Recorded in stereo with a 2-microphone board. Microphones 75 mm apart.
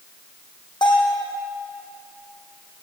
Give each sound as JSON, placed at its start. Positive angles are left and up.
{"t": 0.8, "sound": "a bell", "side_deg": 80, "distance_m": 5.0}